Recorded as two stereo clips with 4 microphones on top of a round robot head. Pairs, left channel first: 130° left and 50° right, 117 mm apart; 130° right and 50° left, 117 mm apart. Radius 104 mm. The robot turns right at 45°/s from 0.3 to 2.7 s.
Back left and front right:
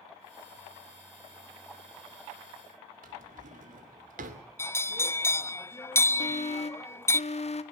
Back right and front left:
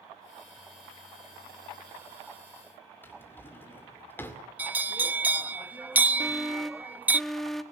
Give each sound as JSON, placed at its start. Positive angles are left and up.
{"t": 3.0, "sound": "a drawer", "azimuth_deg": -60, "distance_m": 2.0}
{"t": 4.6, "sound": "a bell", "azimuth_deg": 100, "distance_m": 0.6}
{"t": 6.2, "sound": "an alarm", "azimuth_deg": 140, "distance_m": 1.6}